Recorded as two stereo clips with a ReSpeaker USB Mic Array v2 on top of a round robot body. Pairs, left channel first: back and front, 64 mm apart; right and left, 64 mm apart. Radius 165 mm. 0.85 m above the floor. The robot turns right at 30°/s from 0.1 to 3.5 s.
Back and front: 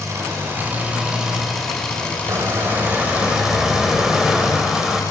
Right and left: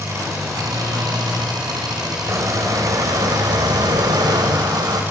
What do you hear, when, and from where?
0.0 s an engine running: 45° left, 4.5 m; by 5.1 s 150° left, 4.5 m
2.3 s a squeak: 45° left, 2.5 m; by 5.0 s 80° left, 2.5 m